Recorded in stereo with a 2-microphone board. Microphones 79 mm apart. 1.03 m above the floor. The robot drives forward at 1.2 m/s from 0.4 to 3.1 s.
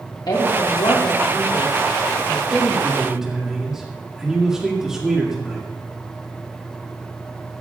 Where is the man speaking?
15° right (ahead or behind), 0.9 m; by 5.7 s 10° right (ahead or behind), 1.8 m.